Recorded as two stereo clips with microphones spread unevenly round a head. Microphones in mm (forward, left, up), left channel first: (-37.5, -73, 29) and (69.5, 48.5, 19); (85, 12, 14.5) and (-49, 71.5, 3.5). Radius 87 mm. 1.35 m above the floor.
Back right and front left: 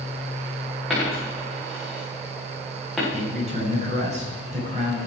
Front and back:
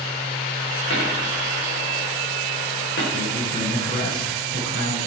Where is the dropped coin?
40° right, 9 m.